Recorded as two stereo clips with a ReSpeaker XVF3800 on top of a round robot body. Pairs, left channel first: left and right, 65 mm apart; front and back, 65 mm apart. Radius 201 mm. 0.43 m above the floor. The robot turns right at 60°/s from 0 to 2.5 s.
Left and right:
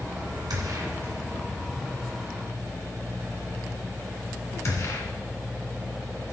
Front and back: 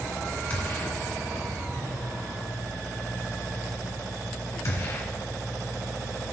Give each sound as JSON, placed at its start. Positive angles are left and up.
{"t": 0.5, "sound": "a gunshot", "azimuth_deg": -70, "distance_m": 1.9}